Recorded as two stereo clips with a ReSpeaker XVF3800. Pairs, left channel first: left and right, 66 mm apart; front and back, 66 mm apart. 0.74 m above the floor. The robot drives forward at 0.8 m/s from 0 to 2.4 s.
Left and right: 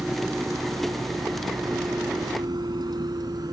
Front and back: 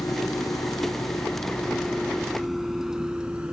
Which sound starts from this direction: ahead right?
A vehicle, at 0.0 s.